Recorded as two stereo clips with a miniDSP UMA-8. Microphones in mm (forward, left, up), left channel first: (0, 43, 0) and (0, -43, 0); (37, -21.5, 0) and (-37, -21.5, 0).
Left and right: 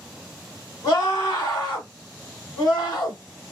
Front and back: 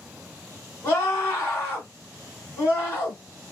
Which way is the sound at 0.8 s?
55° left.